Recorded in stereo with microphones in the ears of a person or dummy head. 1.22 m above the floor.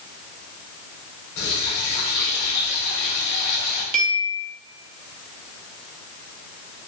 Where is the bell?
45° right (ahead or behind), 0.6 m.